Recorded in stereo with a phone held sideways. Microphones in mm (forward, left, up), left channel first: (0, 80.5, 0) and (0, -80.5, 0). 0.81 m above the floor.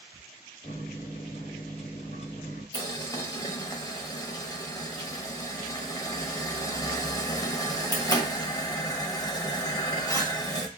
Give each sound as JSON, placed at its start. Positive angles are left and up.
{"t": 0.6, "sound": "a microwave", "side_deg": 40, "distance_m": 0.9}
{"t": 2.7, "sound": "boiling", "side_deg": 20, "distance_m": 0.6}